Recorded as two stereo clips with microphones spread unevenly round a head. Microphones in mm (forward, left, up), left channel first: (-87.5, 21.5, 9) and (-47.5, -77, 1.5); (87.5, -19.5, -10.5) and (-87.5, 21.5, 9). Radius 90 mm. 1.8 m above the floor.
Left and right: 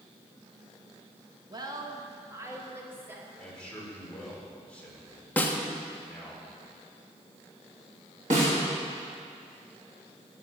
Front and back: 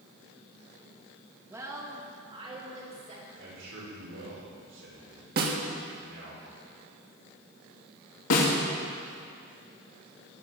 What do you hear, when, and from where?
1.5 s a woman speaking: 115° right, 2.5 m; by 3.2 s 140° right, 4.5 m
3.4 s a man speaking: 170° right, 6.5 m
5.4 s a snare drum: straight behind, 1.8 m
8.3 s a snare drum: 15° right, 3.5 m